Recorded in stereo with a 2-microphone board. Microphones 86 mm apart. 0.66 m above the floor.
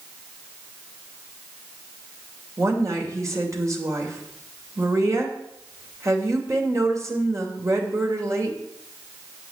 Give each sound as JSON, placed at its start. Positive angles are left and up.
{"t": 2.6, "sound": "a woman speaking", "side_deg": -35, "distance_m": 3.0}